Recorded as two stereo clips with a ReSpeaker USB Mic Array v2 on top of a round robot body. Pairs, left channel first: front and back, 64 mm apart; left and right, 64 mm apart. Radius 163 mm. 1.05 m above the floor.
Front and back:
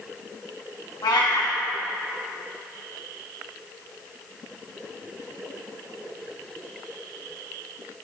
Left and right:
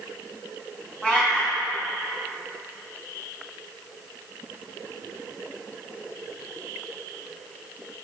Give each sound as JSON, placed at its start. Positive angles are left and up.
{"t": 1.0, "sound": "a cat meowing", "azimuth_deg": 15, "distance_m": 1.4}